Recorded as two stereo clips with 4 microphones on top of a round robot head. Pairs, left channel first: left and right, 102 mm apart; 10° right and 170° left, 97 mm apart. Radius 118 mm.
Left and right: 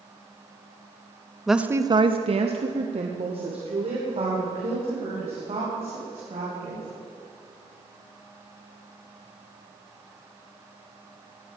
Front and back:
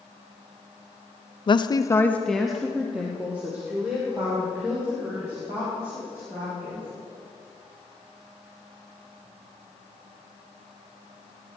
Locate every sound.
1.5 s a woman speaking: straight ahead, 0.7 m; by 6.9 s 125° right, 6 m